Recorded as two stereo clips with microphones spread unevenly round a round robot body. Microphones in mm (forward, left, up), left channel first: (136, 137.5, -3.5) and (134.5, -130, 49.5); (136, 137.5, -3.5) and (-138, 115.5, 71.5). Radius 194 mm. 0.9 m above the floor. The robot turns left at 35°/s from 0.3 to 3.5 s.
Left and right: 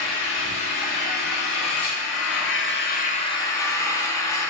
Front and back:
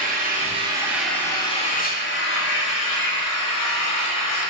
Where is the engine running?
120° left, 0.9 m; by 4.5 s 10° left, 0.9 m.